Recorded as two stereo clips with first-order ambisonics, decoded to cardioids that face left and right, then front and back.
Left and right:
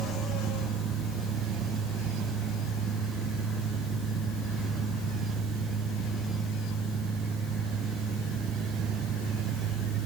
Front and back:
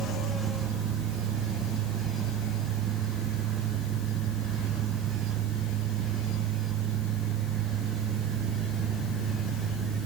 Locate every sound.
Only background noise.